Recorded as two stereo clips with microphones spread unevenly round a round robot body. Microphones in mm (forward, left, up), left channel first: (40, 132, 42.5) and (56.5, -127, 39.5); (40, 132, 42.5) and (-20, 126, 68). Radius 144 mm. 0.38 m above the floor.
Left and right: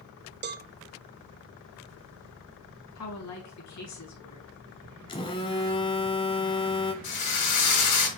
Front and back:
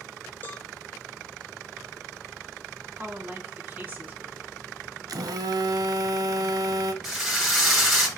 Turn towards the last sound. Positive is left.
turn(degrees=95)